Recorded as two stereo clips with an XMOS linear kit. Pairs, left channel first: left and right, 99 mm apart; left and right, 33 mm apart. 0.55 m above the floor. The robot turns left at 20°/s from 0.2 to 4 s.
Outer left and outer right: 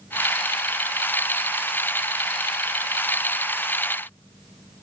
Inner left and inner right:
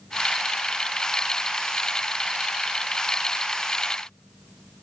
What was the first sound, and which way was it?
Only background noise.